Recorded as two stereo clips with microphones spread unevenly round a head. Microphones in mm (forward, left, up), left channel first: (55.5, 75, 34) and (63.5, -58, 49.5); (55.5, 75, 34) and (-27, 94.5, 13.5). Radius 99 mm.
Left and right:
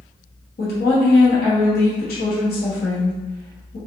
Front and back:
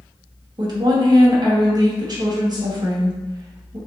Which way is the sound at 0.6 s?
125° left.